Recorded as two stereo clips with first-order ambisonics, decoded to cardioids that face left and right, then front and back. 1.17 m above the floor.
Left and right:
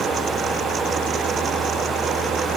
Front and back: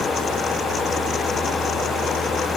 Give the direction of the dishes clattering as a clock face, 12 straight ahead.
No dishes clattering in this recording.